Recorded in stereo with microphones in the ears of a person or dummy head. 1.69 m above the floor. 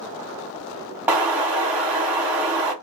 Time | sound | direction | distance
1.1 | an explosion | 10° right (ahead or behind) | 1.0 m